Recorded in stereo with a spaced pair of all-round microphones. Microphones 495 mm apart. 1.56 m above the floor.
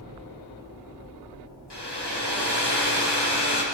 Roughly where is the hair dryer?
Left.